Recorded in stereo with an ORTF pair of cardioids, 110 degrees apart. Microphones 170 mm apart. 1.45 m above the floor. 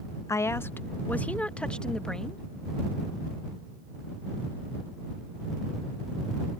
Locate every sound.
0.3 s a woman speaking: 20° left; by 2.4 s 5° left